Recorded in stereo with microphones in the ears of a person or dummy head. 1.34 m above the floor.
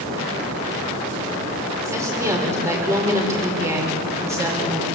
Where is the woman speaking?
20° right (ahead or behind), 5.5 m.